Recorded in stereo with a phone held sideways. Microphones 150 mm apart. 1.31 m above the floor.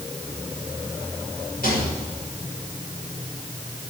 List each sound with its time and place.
1.6 s a rattle: 85° left, 6 m